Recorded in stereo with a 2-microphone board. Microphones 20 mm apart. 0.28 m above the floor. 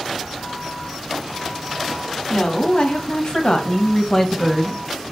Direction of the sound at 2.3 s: 45° left (ahead or behind).